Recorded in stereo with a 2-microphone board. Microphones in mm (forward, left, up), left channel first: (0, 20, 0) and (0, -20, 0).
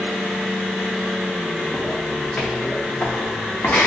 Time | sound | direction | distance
1.7 | footsteps | 10° left (ahead or behind) | 0.7 m